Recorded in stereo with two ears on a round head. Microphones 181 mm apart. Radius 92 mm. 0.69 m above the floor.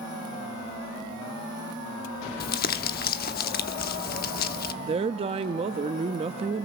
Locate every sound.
2.4 s crumpling: 45° left (ahead or behind), 1.0 m
4.8 s a woman speaking: 30° right (ahead or behind), 0.6 m